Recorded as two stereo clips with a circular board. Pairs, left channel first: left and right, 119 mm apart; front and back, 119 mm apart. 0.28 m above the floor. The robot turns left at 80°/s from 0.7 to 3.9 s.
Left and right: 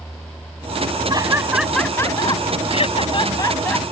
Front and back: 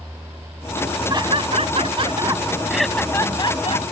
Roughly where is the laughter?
Behind right.